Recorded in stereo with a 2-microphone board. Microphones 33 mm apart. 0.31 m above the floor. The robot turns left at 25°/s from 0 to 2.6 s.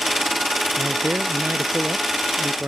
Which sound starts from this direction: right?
A man speaking, at 0.8 s.